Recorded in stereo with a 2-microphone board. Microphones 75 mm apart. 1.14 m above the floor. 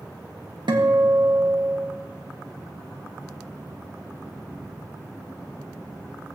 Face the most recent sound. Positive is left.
turn(degrees=-80)